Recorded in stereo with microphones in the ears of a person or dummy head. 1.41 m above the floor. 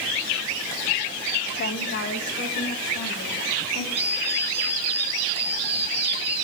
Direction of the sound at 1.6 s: 50° left (ahead or behind).